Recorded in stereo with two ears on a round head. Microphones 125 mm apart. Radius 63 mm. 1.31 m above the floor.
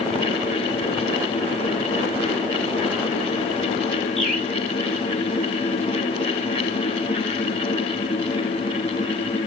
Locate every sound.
4.2 s a bird: centre (ahead or behind), 2.0 m